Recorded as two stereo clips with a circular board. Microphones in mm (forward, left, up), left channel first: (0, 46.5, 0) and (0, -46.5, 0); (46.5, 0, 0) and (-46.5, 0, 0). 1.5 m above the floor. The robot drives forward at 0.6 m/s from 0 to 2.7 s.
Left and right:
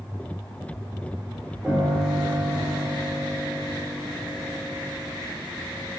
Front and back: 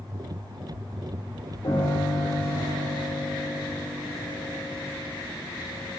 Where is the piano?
10° right, 5.5 m.